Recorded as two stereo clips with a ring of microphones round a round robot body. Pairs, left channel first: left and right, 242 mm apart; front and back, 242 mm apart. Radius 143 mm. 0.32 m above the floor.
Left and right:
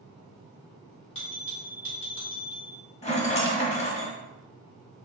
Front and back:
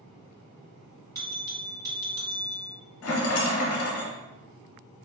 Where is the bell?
110° left, 2.0 m.